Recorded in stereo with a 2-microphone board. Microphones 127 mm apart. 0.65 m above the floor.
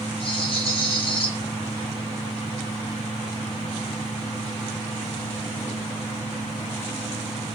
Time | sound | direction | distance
0.2 | a rattle | 45° left (ahead or behind) | 3 m